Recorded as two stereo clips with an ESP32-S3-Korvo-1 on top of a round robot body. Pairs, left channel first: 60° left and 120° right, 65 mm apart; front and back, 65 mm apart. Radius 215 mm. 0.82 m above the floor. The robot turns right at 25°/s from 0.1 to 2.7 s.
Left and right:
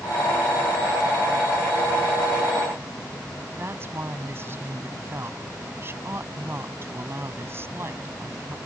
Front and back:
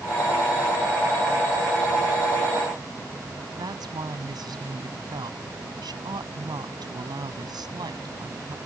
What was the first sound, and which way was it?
A woman speaking, 175° right.